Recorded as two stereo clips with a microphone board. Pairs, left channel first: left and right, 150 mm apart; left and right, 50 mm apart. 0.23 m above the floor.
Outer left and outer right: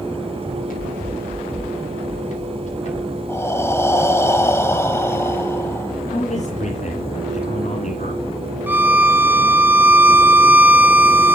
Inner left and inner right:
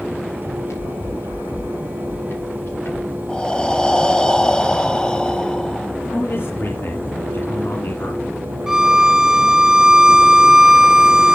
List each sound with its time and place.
0.4 s running footsteps: 70° left (ahead or behind), 8 m; by 3.2 s 50° left (ahead or behind), 8.5 m
3.3 s breathing: 20° left (ahead or behind), 1.2 m
6.1 s a man speaking: 60° left (ahead or behind), 3 m
8.7 s a violin: 10° right (ahead or behind), 1.1 m